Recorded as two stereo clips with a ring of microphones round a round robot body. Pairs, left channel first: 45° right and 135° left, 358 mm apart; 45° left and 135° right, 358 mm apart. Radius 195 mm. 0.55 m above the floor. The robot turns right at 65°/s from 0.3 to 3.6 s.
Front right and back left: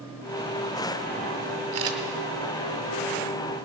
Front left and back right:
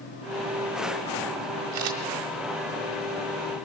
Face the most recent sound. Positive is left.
turn(degrees=-35)